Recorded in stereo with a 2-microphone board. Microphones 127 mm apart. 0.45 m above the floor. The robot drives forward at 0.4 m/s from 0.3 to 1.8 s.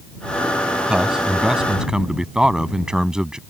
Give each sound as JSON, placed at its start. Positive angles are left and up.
{"t": 0.9, "sound": "a man speaking", "side_deg": -5}